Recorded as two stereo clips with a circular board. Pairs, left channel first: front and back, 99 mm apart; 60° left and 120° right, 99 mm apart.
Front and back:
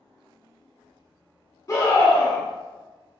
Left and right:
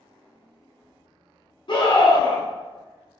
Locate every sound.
1.7 s a scream: 50° left, 1.4 m